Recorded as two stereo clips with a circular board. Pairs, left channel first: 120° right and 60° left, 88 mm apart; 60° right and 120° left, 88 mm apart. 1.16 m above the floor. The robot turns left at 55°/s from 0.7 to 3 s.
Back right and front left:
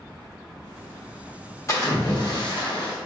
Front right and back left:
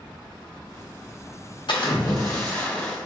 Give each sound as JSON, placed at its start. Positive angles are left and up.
{"t": 1.7, "sound": "a splash", "azimuth_deg": -70, "distance_m": 1.1}